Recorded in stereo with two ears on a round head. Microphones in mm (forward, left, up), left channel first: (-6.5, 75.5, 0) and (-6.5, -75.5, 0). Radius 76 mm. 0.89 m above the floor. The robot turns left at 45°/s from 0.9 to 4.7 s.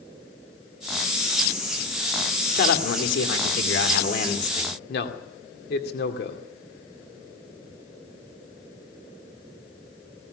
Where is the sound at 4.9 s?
60° left (ahead or behind), 2 m.